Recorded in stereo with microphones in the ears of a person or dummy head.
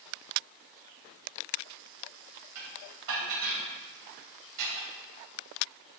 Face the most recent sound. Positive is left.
turn(degrees=-75)  # may be behind; listen again after turning